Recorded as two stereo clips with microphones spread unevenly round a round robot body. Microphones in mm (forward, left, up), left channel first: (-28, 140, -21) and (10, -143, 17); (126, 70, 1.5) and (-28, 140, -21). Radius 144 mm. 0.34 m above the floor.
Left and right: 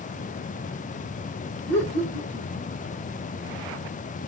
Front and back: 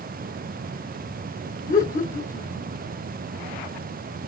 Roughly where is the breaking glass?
I don't hear breaking glass.